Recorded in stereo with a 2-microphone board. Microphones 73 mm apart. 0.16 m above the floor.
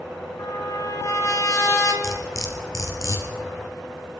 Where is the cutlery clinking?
50° left (ahead or behind), 1.8 m.